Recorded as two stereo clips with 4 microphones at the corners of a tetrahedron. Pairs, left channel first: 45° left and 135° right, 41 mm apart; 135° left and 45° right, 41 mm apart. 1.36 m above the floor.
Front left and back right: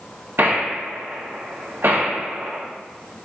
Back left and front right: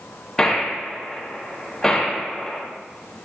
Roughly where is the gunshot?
Behind right.